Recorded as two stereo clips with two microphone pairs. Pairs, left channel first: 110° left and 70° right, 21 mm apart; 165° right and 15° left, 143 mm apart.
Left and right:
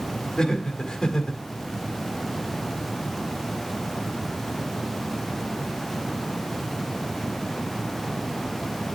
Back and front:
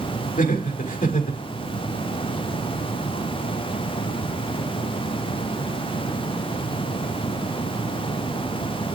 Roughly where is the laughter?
Behind.